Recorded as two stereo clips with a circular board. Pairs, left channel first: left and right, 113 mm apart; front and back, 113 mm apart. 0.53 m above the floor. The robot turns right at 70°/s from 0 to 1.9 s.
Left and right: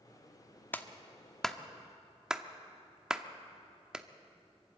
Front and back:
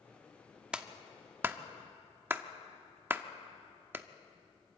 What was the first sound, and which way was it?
A clap, 115° left.